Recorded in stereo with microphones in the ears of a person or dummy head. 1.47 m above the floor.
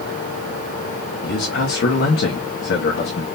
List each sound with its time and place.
1.2 s a man speaking: 60° left (ahead or behind), 1.4 m